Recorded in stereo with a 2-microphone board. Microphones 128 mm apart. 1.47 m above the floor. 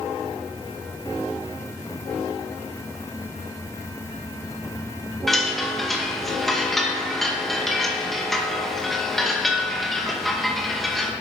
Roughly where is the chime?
Centre.